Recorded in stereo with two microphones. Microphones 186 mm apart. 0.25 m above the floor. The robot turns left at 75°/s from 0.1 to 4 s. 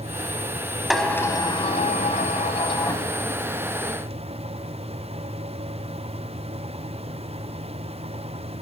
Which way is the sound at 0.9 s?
Straight behind.